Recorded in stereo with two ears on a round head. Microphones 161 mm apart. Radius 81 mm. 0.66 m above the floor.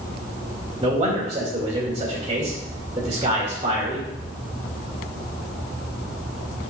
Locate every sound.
0.8 s a man speaking: 25° right (ahead or behind), 1.9 m